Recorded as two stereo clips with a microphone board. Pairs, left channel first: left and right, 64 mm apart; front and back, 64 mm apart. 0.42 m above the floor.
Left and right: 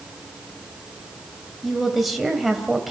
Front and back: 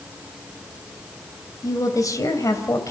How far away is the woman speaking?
About 2.5 m.